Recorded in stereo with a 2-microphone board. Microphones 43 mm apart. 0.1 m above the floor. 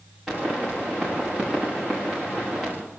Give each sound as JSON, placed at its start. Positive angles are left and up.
{"t": 0.3, "sound": "a pop", "side_deg": -5, "distance_m": 9.0}